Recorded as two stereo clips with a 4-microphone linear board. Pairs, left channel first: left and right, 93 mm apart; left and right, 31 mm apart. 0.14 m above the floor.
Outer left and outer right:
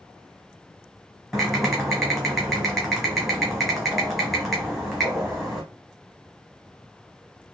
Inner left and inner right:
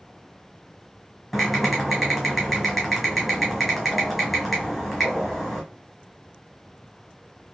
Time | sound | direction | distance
1.3 | typing on a keyboard | centre (ahead or behind) | 1.4 m